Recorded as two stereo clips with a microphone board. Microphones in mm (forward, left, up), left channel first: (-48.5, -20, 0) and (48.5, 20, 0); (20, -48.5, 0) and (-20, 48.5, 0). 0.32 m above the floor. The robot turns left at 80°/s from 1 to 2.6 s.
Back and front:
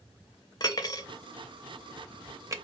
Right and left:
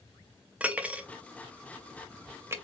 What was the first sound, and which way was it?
Cutlery clinking, 175° right.